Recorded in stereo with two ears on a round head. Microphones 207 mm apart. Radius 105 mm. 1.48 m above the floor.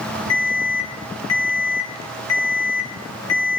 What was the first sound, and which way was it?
An alarm, 80° left.